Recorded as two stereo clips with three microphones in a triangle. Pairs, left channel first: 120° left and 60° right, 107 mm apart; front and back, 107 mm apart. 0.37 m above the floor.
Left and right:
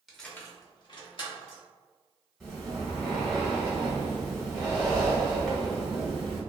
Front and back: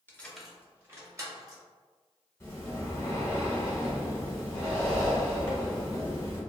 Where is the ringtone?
No ringtone in this recording.